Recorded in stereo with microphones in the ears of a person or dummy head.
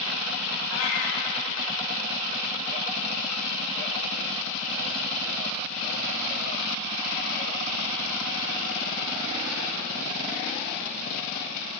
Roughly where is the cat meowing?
Left.